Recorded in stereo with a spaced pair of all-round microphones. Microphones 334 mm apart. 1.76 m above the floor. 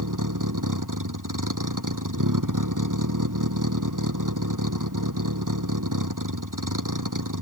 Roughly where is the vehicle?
Right.